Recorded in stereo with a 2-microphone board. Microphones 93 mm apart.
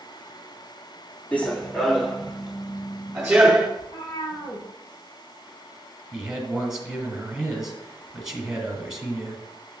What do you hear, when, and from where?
1.3 s running footsteps: 15° left (ahead or behind), 1.1 m; by 3.7 s 10° right (ahead or behind), 3 m
3.8 s a cat meowing: 65° left (ahead or behind), 4 m
6.1 s a man speaking: 5° right (ahead or behind), 1.9 m